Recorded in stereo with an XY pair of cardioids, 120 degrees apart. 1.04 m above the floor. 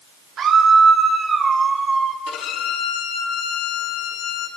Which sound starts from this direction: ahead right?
A scream, at 0.4 s.